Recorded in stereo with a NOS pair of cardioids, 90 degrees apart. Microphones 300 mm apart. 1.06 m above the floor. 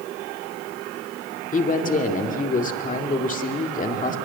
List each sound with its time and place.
1.5 s a man speaking: 25° left, 2.5 m